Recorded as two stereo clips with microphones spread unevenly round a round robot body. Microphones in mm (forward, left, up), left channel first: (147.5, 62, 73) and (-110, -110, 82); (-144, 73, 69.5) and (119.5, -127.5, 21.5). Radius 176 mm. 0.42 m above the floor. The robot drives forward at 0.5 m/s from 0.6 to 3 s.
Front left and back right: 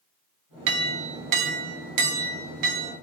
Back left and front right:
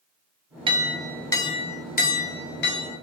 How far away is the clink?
About 0.6 m.